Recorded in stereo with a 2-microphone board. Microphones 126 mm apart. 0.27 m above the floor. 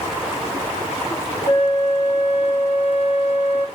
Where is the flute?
75° left (ahead or behind), 3.5 m.